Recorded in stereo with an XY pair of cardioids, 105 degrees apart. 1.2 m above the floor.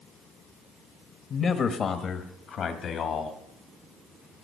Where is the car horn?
No car horn in this recording.